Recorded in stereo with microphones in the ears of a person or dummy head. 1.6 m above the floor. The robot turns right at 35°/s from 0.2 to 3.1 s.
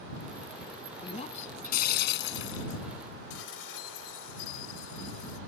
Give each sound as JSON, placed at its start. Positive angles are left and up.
{"t": 1.0, "sound": "breaking glass", "azimuth_deg": 30}
{"t": 3.3, "sound": "dishes clattering", "side_deg": 85}